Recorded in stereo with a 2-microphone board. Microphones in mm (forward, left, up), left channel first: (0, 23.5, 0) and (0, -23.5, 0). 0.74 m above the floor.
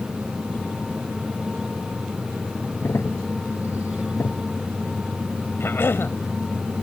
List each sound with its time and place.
2.8 s a crack: 75° left (ahead or behind)
5.6 s a cough: 55° left (ahead or behind)